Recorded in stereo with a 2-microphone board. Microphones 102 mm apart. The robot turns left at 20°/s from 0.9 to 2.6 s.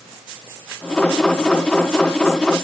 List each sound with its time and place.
Only background noise.